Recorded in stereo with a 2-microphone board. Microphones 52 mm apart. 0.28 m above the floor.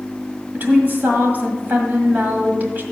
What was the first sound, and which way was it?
A woman speaking, 40° right (ahead or behind).